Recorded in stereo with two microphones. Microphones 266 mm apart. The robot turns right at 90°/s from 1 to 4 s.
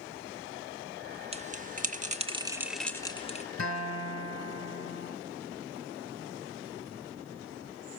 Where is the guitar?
65° left, 1.2 m; by 5.2 s 100° left, 1.2 m.